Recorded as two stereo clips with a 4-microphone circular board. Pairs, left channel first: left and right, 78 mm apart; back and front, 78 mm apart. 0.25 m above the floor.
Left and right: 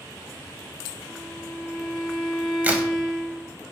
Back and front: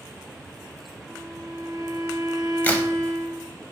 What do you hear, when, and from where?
1.1 s a violin: 20° left, 1.7 m
2.6 s a crack: 140° right, 0.6 m